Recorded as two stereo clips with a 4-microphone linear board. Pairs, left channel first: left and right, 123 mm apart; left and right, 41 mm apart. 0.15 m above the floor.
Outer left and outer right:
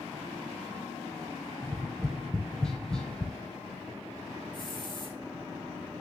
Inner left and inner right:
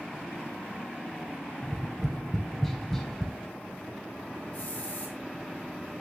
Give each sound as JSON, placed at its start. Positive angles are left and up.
{"t": 1.6, "sound": "tapping", "side_deg": 5, "distance_m": 1.1}
{"t": 4.5, "sound": "a hiss", "side_deg": 40, "distance_m": 2.5}